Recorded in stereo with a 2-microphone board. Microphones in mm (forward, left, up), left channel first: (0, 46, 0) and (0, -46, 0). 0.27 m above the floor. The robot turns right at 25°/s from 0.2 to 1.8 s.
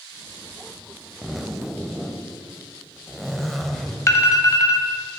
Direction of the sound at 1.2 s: 5° right (ahead or behind).